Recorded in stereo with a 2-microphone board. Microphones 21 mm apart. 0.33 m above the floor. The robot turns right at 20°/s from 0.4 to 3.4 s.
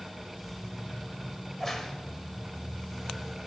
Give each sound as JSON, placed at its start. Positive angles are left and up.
{"t": 1.4, "sound": "a crack", "side_deg": 10, "distance_m": 1.4}